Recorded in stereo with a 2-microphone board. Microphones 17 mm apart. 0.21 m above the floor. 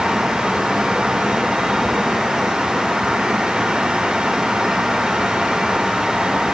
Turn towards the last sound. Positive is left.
No sound to turn to.